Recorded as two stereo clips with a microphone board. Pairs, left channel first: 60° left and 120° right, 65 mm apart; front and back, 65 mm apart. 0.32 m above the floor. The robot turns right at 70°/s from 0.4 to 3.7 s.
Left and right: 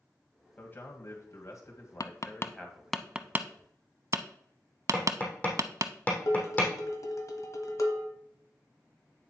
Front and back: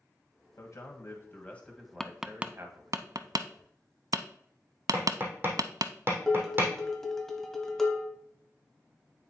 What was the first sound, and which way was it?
A man speaking, 5° right.